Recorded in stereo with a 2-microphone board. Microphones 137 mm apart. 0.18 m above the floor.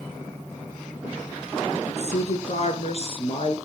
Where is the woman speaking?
60° left (ahead or behind), 3 m; by 3.6 s 45° left (ahead or behind), 3.5 m.